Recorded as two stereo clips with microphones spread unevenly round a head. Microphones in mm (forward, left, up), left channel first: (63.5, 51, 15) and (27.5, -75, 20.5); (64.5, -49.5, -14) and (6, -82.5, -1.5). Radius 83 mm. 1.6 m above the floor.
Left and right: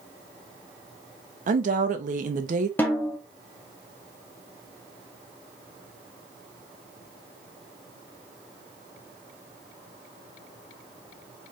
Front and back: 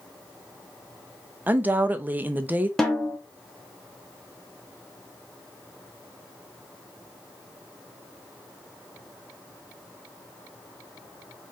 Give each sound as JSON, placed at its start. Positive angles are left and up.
{"t": 1.5, "sound": "a woman speaking", "azimuth_deg": -95, "distance_m": 0.7}
{"t": 2.8, "sound": "a snare drum", "azimuth_deg": 130, "distance_m": 0.6}